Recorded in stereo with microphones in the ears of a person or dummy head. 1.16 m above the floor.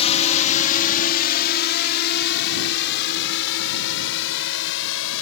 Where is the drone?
30° left (ahead or behind); by 5.2 s 70° left (ahead or behind).